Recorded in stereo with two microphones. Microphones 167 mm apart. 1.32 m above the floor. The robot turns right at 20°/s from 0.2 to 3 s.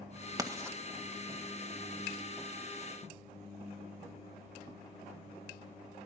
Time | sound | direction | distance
0.4 | writing | 20° right (ahead or behind) | 1.7 m